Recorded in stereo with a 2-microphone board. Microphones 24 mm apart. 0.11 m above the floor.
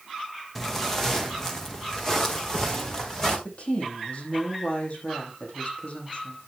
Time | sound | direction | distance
0.6 | footsteps | 10° left (ahead or behind) | 2 m
3.5 | a woman speaking | 55° left (ahead or behind) | 5 m